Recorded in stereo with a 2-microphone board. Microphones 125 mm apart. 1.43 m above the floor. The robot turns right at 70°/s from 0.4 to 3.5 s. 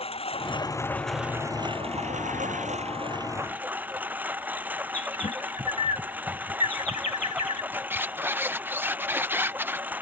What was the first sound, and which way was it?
A lawn mower, 130° left.